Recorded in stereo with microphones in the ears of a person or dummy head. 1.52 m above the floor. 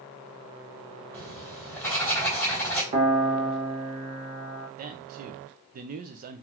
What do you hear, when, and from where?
1.1 s writing: 10° left (ahead or behind), 2 m
2.9 s a piano: 35° right (ahead or behind), 0.9 m
4.8 s a man speaking: 40° right (ahead or behind), 0.6 m